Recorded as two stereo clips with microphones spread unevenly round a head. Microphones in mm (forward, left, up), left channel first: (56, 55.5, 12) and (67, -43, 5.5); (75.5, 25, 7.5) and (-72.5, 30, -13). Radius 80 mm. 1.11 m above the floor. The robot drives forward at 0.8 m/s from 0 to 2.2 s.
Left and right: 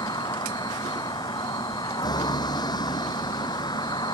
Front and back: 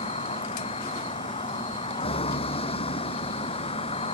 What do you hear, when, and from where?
0.0 s a vehicle: 50° left